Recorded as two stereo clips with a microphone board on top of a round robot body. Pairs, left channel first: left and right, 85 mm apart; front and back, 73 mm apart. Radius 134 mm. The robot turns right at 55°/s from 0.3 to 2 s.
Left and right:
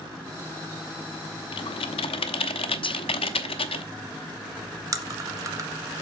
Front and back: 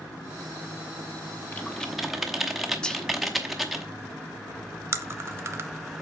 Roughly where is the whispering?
Left.